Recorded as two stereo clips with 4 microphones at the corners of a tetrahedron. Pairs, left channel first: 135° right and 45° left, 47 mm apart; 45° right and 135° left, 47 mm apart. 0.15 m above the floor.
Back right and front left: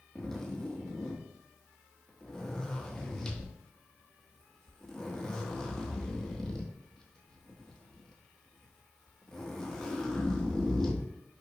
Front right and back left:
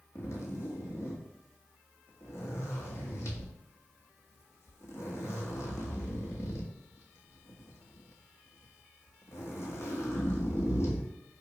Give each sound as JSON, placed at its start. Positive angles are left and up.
{"t": 0.1, "sound": "a zipper", "azimuth_deg": -55, "distance_m": 1.1}